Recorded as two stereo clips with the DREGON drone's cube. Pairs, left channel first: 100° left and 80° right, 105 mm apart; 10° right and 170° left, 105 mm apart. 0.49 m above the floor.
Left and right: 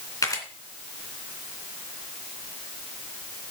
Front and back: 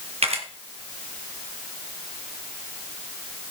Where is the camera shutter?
155° left, 2.5 m.